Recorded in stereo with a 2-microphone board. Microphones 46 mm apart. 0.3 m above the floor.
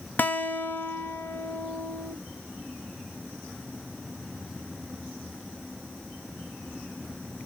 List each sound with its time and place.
0.2 s a guitar: 45° left (ahead or behind), 0.7 m